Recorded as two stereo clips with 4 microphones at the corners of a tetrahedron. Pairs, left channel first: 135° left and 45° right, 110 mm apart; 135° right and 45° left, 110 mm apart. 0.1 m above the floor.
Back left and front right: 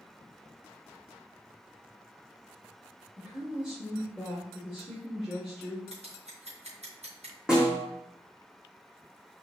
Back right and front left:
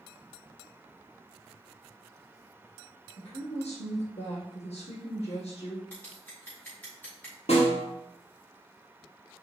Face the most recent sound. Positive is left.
turn(degrees=-125)